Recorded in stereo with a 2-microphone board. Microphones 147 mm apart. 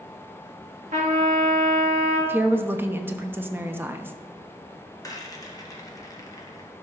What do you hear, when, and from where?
0.9 s a trumpet: 75° right (ahead or behind), 2.5 m
2.3 s a woman speaking: 15° right (ahead or behind), 0.8 m
5.0 s a rattle: 25° left (ahead or behind), 1.3 m